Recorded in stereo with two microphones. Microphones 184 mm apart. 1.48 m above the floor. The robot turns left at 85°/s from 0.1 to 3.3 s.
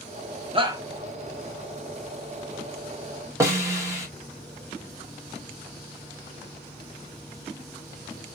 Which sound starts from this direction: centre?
A snare drum, at 3.4 s.